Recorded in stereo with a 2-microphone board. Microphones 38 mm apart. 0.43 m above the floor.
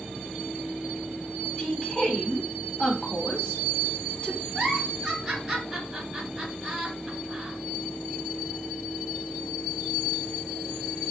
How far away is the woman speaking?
About 1.2 m.